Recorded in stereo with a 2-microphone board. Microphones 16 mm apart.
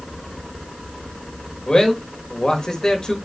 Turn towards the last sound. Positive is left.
turn(degrees=50)  # may be behind; listen again after turning